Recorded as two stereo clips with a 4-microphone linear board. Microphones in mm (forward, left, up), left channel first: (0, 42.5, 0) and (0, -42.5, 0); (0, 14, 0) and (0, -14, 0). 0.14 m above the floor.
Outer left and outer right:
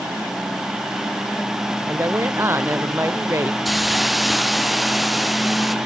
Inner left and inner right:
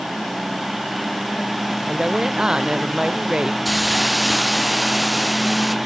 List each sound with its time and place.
1.9 s a woman speaking: 30° right (ahead or behind)
3.6 s a hiss: centre (ahead or behind)